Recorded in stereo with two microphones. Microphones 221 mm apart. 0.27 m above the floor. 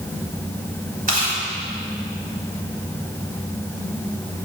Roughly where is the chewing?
Right.